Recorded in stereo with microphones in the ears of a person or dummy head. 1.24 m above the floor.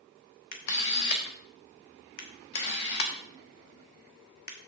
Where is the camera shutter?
50° left (ahead or behind), 1.3 m.